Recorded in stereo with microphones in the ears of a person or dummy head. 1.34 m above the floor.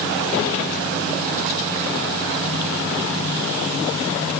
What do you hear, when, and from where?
Only background noise.